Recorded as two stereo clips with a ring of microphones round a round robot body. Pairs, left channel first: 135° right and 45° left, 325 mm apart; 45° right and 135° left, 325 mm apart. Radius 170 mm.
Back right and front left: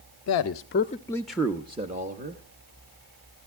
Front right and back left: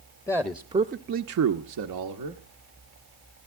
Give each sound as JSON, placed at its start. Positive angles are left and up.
{"t": 0.3, "sound": "a man speaking", "azimuth_deg": -120, "distance_m": 0.6}